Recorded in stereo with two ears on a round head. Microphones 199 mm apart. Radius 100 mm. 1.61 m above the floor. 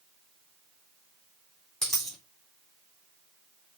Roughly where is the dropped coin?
Centre.